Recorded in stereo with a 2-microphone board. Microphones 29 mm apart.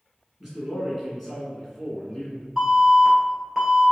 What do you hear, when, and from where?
0.4 s a man speaking: centre (ahead or behind), 1.4 m; by 2.5 s 20° left (ahead or behind), 1.5 m
2.6 s an alarm: 5° left (ahead or behind), 1.3 m